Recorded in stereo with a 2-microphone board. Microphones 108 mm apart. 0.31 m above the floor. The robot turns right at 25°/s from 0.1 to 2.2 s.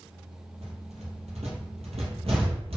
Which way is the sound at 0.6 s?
75° right (ahead or behind).